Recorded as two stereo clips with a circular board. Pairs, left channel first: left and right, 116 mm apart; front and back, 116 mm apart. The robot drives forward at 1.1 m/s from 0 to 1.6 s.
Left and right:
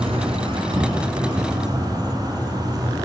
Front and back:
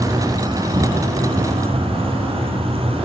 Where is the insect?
120° right, 2.5 m; by 3.1 s 145° right, 3.5 m.